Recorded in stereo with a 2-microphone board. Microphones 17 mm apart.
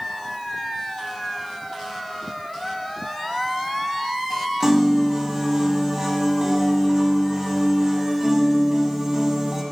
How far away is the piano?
About 1.2 m.